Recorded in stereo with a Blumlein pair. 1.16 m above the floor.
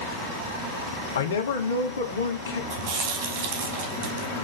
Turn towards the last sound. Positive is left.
turn(degrees=-40)